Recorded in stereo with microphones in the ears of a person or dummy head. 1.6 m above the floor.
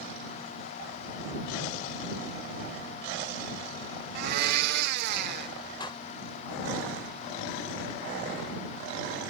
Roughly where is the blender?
Right.